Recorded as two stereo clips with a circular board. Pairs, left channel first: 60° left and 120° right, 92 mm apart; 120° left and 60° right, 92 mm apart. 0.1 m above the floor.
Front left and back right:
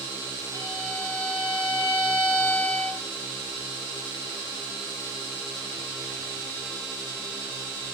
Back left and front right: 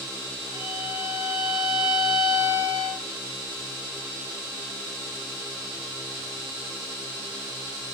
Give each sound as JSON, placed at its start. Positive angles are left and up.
{"t": 0.5, "sound": "a violin", "azimuth_deg": -65, "distance_m": 6.5}